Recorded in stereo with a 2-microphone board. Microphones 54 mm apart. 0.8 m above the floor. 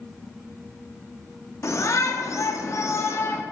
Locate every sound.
1.6 s a shout: 60° left (ahead or behind), 1.3 m; by 3.4 s 45° left (ahead or behind), 1.2 m